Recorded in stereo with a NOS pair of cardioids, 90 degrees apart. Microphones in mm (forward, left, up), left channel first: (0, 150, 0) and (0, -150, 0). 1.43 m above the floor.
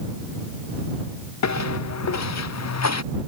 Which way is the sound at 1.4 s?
65° left.